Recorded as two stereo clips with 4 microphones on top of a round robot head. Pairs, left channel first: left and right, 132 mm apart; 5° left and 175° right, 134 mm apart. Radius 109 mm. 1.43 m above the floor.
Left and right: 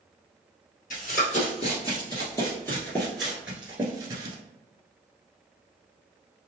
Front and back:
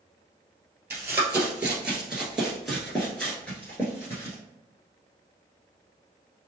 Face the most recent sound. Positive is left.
turn(degrees=-55)